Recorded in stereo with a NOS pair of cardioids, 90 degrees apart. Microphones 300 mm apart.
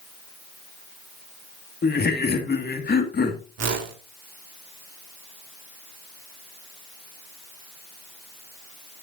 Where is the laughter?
30° left, 2.5 m.